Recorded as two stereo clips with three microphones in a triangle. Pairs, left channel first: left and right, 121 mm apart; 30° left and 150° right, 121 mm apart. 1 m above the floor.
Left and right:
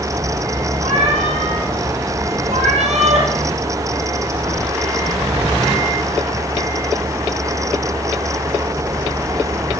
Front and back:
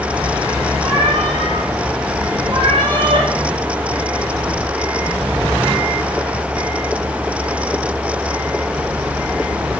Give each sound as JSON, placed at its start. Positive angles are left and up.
{"t": 0.8, "sound": "a cat meowing", "azimuth_deg": -110, "distance_m": 8.5}